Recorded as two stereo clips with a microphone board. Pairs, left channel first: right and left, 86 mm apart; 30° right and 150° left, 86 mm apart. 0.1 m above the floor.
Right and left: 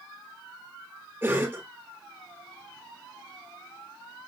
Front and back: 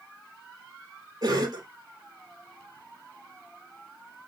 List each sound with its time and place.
1.2 s a cough: 145° left, 1.6 m